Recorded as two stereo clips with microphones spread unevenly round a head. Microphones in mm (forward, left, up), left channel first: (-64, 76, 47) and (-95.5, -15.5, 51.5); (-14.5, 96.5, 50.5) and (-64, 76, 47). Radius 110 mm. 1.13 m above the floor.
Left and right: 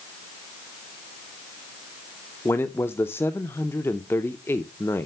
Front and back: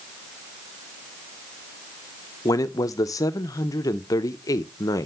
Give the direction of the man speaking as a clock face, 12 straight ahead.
12 o'clock.